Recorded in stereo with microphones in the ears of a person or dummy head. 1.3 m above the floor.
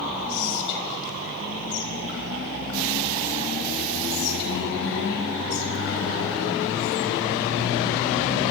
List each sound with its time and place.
0.3 s whispering: 70° left (ahead or behind), 5.5 m